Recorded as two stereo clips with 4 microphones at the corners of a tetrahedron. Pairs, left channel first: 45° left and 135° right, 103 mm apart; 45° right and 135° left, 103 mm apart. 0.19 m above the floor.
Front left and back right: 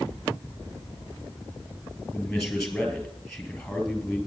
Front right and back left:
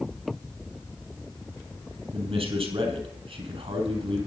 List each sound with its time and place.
2.1 s a man speaking: 130° left, 3.5 m